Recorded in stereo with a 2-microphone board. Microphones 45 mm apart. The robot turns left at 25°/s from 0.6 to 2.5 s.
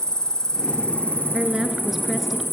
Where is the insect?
160° left, 1.7 m; by 2.5 s 115° left, 1.7 m.